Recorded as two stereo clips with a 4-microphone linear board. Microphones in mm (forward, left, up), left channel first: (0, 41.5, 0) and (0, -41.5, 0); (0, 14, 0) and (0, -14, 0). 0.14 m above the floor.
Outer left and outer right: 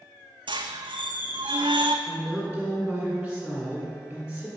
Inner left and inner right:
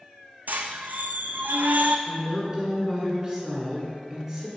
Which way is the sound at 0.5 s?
80° right.